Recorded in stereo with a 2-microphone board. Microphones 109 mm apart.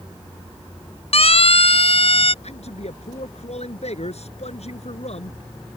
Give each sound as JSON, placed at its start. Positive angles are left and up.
{"t": 1.1, "sound": "a siren", "side_deg": 65}
{"t": 2.4, "sound": "a man speaking", "side_deg": 70}